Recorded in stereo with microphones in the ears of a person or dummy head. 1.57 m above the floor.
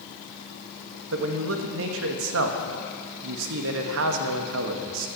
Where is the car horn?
No car horn in this recording.